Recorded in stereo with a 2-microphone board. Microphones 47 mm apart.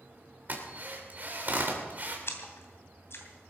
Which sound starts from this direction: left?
A splash, at 2.3 s.